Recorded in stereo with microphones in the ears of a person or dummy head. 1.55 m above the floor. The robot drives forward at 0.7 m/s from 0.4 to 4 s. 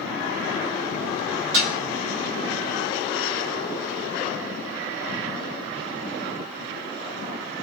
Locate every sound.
1.5 s dishes clattering: 75° right (ahead or behind), 3 m